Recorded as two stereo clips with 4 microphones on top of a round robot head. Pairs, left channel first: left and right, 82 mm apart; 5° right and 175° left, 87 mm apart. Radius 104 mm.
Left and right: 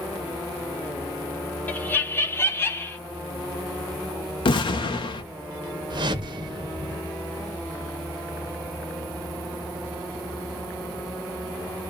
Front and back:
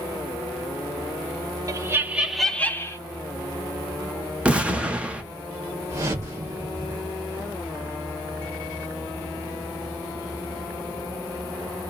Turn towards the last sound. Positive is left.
turn(degrees=-120)